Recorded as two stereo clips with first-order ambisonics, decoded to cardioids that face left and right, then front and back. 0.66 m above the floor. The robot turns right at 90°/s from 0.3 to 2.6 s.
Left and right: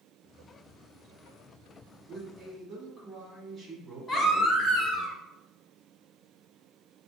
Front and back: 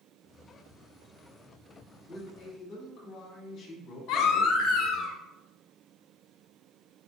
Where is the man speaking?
35° right, 1.3 m; by 5.1 s 10° left, 1.3 m.